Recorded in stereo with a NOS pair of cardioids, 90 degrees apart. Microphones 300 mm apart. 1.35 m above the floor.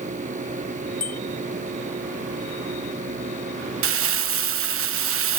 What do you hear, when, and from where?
0.0 s a fan: 25° right
1.0 s a bicycle bell: 30° left
3.8 s crumpling: 50° right